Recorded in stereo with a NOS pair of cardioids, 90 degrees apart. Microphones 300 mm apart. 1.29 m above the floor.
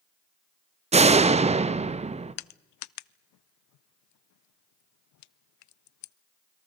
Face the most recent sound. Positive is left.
turn(degrees=70)